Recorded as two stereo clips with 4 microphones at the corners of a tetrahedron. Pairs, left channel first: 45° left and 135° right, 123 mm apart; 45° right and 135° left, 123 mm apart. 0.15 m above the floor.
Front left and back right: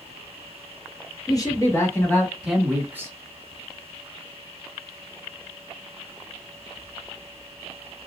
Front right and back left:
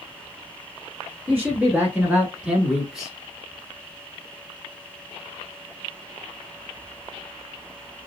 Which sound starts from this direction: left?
A man speaking, at 1.3 s.